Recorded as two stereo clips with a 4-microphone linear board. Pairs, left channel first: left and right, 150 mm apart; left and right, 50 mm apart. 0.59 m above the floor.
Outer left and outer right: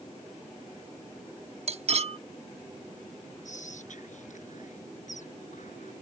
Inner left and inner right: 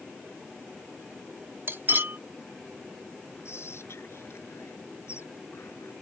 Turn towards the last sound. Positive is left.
turn(degrees=60)  # may be behind; listen again after turning